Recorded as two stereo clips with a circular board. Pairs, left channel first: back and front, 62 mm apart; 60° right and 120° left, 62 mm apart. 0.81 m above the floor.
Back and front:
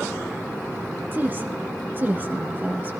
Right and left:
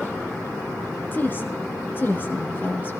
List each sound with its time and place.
1.1 s a woman speaking: 30° right, 0.8 m